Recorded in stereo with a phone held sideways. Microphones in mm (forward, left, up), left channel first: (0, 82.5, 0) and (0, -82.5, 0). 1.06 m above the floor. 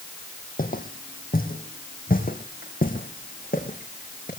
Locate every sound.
0.6 s footsteps: 60° left (ahead or behind), 2.5 m